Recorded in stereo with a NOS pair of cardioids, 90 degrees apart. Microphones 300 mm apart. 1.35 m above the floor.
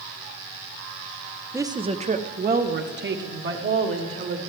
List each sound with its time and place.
1.5 s a woman speaking: 10° right, 0.6 m; by 4.4 s 40° right, 2 m